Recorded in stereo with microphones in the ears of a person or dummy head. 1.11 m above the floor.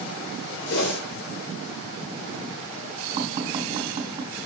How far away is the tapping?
About 3.5 m.